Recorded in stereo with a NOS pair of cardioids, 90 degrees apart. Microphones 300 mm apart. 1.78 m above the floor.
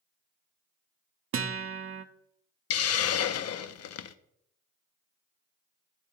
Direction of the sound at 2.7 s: 55° left.